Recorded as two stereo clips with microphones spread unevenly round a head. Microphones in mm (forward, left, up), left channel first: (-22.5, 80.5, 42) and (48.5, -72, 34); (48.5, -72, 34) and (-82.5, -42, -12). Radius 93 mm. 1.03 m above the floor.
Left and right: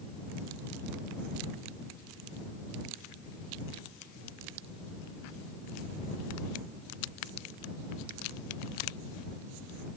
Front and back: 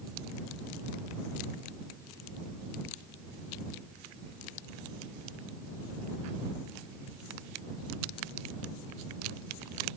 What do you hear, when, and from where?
Only background noise.